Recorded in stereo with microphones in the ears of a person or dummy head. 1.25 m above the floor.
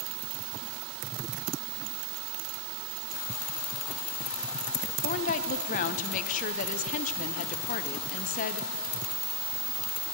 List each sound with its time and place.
5.0 s a woman speaking: 35° left (ahead or behind), 0.6 m